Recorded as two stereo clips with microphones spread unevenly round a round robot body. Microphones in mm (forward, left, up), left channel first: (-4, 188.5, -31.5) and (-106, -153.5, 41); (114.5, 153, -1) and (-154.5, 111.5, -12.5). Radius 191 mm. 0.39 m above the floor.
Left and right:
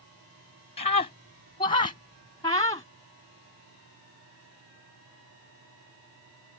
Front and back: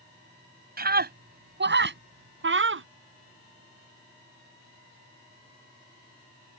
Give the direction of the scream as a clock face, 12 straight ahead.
7 o'clock.